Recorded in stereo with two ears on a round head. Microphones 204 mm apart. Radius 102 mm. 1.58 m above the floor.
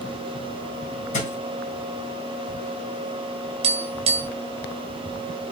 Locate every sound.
1.1 s a thud: 35° left (ahead or behind), 3.5 m
3.6 s tapping: 25° right (ahead or behind), 2 m